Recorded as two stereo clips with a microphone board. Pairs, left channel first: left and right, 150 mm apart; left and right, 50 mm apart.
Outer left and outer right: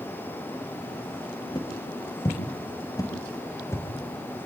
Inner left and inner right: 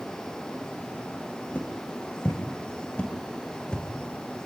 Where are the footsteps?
30° left (ahead or behind), 6.5 m; by 3.9 s 20° left (ahead or behind), 5.5 m.